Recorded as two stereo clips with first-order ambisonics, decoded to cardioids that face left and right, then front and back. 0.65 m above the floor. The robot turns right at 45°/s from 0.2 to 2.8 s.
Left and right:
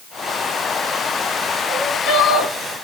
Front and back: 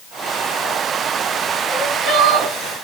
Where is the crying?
120° left, 4.5 m; by 2.5 s 155° left, 4.5 m.